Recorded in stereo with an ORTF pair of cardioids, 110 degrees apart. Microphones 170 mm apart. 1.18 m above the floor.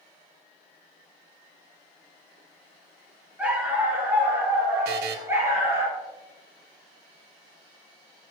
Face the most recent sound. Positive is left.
turn(degrees=-70)